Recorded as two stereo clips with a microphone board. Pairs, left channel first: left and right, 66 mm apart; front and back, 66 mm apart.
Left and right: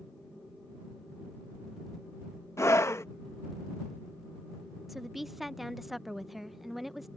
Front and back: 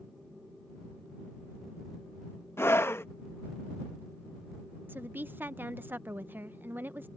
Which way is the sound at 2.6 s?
45° left.